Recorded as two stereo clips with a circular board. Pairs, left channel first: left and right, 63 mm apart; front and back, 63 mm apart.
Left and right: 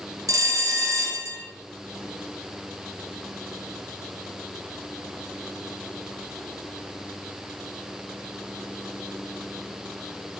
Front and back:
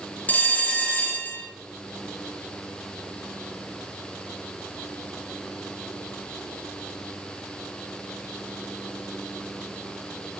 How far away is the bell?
About 1.7 m.